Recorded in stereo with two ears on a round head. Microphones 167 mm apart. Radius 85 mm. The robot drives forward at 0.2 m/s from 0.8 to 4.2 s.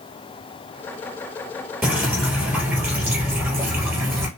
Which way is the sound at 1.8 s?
10° right (ahead or behind).